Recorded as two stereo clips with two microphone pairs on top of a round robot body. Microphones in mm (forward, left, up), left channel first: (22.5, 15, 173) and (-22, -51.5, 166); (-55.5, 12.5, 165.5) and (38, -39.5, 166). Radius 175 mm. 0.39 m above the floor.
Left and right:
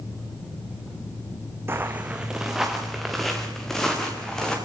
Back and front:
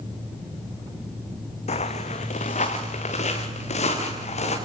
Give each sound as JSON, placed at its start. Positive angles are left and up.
{"t": 1.7, "sound": "footsteps", "azimuth_deg": 170, "distance_m": 1.6}